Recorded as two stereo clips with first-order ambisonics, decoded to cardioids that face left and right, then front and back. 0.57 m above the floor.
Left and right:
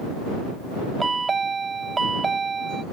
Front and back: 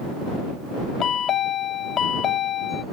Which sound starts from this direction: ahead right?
A chime, at 1.0 s.